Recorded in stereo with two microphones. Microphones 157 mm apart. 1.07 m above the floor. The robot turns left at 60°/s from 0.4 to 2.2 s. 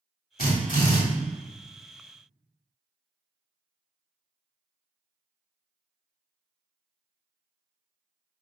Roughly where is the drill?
Left.